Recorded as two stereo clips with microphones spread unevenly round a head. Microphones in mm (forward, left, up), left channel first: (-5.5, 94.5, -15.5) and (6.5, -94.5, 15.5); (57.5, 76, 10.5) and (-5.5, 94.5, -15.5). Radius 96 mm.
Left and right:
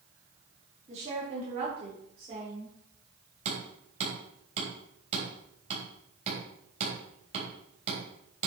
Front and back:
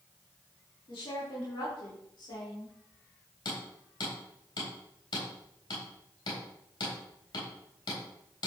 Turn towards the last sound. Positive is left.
turn(degrees=-30)